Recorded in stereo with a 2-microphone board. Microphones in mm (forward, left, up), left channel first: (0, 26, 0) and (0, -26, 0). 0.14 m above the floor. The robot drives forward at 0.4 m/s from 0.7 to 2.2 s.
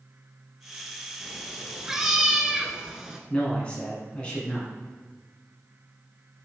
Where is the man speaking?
20° left (ahead or behind), 1.3 m.